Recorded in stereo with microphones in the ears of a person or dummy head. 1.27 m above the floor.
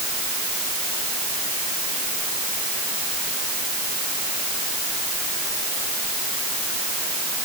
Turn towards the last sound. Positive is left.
No sound to turn to.